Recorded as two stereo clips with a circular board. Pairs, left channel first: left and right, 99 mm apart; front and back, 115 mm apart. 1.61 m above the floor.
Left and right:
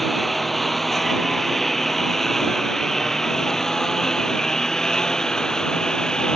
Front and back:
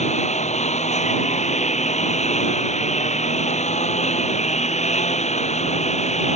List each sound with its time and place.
0.0 s a lawn mower: straight ahead; by 6.4 s 5° left